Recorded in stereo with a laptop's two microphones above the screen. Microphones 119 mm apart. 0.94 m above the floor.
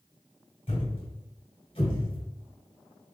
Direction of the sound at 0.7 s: 55° left (ahead or behind).